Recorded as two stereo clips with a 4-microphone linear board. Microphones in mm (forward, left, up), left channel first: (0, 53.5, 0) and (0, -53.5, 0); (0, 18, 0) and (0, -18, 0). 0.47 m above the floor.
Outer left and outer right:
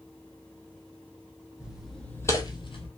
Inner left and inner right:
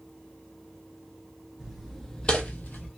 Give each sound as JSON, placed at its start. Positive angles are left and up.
{"t": 1.6, "sound": "footsteps", "side_deg": -10, "distance_m": 1.1}